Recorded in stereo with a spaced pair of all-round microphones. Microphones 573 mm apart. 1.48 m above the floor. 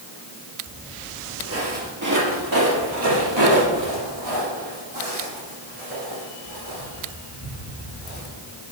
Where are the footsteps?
10° right (ahead or behind), 1.9 m; by 8.2 s 65° right (ahead or behind), 6 m.